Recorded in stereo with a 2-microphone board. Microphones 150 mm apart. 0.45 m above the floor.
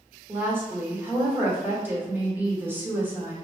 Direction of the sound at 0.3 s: 15° right (ahead or behind).